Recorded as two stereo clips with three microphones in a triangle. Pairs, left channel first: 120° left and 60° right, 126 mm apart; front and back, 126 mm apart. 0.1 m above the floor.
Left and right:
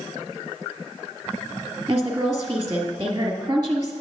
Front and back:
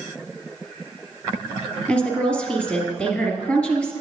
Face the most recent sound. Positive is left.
turn(degrees=-75)